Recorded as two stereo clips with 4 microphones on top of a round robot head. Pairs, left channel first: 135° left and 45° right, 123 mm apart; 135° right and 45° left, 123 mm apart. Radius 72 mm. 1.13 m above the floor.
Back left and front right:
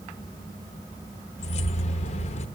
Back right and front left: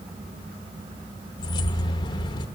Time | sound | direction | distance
1.4 | keys jangling | 170° left | 0.9 m